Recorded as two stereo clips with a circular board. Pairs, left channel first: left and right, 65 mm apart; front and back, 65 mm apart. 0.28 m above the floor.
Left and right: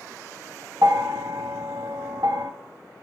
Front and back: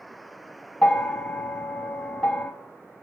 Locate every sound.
0.8 s a bell: 75° right, 0.7 m